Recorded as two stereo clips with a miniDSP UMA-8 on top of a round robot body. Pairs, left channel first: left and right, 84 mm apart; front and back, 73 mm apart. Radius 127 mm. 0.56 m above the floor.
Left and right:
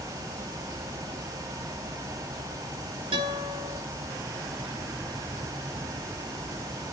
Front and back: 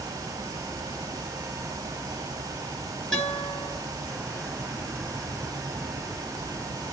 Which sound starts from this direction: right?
A guitar, at 3.1 s.